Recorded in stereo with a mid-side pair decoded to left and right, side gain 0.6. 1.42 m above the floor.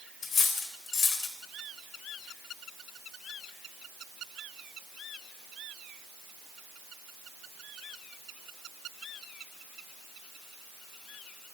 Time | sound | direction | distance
0.2 | cutlery clinking | 35° left | 4 m